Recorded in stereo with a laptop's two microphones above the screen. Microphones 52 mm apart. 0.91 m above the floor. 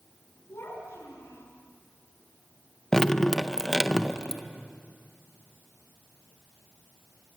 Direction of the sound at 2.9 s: 10° left (ahead or behind).